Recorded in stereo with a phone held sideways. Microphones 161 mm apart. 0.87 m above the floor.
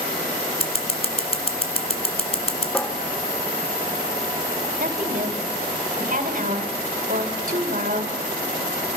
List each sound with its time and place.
0.6 s scissors: 40° left (ahead or behind), 1.7 m
2.7 s a cupboard door: 10° left (ahead or behind), 1.2 m
4.8 s a woman speaking: 55° right (ahead or behind), 3 m